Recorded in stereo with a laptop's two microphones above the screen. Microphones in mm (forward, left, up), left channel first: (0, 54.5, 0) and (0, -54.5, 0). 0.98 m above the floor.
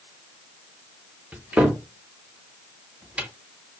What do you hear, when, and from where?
1.3 s a cupboard door: 10° right (ahead or behind), 0.5 m